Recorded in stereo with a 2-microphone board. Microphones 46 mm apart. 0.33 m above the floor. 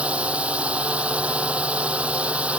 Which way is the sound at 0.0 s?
30° right (ahead or behind).